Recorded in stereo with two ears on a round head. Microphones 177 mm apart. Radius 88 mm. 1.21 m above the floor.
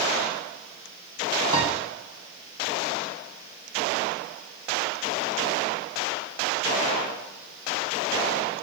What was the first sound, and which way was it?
A piano, 20° right (ahead or behind).